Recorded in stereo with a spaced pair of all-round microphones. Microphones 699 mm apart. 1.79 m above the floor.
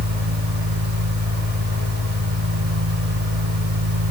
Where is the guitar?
I don't hear a guitar.